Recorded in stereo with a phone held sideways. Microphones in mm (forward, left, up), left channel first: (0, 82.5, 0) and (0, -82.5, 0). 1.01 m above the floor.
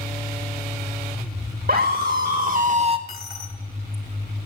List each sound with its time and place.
1.7 s a scream: 65° right (ahead or behind), 2 m; by 3.0 s 30° right (ahead or behind), 0.7 m
3.1 s a dropped coin: 70° left (ahead or behind), 1.8 m